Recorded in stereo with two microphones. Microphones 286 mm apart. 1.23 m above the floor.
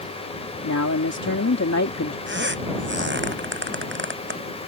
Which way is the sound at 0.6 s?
75° left (ahead or behind).